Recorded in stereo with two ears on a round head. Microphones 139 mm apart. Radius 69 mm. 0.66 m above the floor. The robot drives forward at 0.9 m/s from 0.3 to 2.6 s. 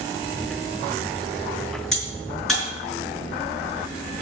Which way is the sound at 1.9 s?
Centre (ahead or behind).